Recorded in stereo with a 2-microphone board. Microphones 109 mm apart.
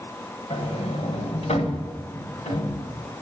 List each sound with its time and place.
0.5 s a sliding door: 75° left (ahead or behind), 1.3 m